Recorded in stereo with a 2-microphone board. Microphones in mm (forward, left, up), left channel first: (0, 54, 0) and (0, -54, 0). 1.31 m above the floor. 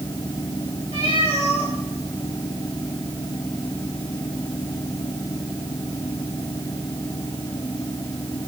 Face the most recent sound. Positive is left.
turn(degrees=60)  # may be behind; listen again after turning